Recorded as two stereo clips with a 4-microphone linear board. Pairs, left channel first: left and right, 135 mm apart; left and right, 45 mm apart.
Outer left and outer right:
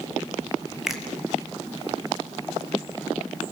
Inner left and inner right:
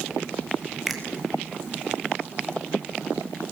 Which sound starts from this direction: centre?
A finger snap, at 0.9 s.